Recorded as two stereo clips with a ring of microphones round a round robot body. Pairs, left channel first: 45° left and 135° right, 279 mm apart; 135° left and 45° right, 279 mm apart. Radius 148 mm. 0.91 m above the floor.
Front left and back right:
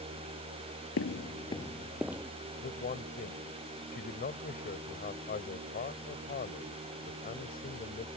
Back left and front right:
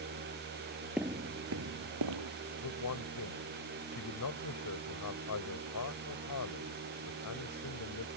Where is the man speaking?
105° left.